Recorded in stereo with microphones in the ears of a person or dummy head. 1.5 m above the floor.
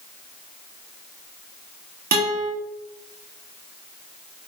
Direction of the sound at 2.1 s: 45° right (ahead or behind).